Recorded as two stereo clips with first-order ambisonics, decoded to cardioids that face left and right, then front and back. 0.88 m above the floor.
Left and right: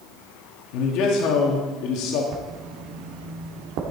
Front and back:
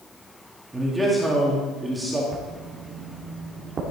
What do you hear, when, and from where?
0.7 s a man speaking: 100° left, 2 m
2.3 s writing: 115° right, 1.8 m